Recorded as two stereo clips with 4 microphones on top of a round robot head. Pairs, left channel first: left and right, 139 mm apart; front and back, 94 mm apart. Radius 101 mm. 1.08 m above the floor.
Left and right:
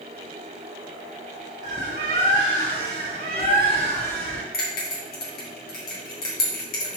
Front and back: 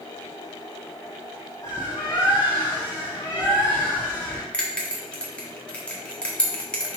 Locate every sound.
1.6 s a bird: 70° right, 1.0 m
4.5 s a bell: 75° left, 2 m